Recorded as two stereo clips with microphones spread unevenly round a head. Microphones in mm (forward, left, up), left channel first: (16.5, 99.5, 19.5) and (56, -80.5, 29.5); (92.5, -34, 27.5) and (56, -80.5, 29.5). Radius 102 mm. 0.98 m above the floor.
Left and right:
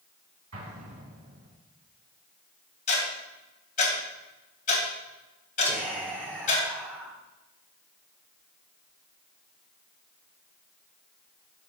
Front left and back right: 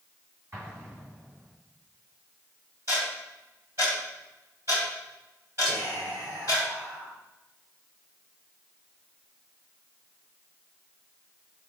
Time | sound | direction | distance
0.5 | an explosion | 85° right | 3.5 m
2.9 | ticking | 160° left | 2.5 m
5.6 | whispering | 155° right | 2 m